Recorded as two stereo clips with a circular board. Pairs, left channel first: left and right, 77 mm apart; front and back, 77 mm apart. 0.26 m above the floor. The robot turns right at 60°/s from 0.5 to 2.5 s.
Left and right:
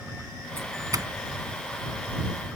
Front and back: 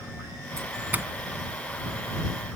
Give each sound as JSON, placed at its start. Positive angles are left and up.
{"t": 0.6, "sound": "a doorbell", "azimuth_deg": -140}